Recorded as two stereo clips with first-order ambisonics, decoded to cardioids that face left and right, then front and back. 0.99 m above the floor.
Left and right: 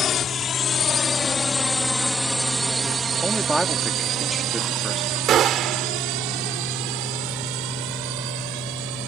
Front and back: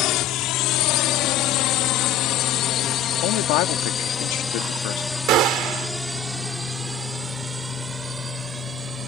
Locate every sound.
0.0 s a drone: 30° left; by 9.1 s 105° right
3.2 s a man speaking: 5° right
5.3 s a gunshot: 140° right